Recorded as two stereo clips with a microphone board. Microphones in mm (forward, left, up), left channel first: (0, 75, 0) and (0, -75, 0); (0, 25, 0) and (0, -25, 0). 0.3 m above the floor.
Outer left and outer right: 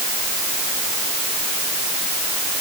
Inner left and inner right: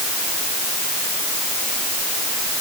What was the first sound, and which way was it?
Only background noise.